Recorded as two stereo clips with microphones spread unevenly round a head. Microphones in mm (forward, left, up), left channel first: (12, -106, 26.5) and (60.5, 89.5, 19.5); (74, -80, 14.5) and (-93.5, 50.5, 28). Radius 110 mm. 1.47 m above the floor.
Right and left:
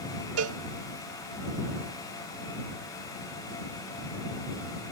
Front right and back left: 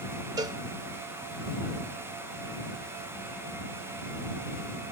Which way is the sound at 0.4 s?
70° left.